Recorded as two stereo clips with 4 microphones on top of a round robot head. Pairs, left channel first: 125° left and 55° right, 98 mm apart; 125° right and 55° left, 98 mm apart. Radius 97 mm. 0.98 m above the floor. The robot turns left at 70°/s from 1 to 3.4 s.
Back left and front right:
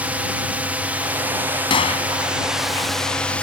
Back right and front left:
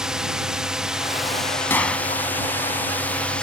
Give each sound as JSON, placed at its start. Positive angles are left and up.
{"t": 0.0, "sound": "a drone", "azimuth_deg": -15}
{"t": 1.7, "sound": "a gunshot", "azimuth_deg": 165}